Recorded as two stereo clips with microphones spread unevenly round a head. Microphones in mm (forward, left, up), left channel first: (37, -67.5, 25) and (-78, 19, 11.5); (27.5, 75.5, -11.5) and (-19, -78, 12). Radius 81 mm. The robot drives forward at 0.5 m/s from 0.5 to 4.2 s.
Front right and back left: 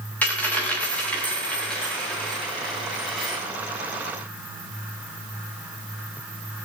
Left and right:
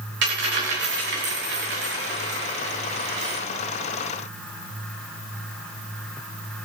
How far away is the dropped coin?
About 5.5 m.